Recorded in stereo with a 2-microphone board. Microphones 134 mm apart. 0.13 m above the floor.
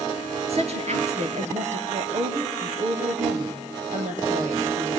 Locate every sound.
0.5 s a woman speaking: 50° right (ahead or behind), 2.5 m; by 5.0 s 70° right (ahead or behind), 4.5 m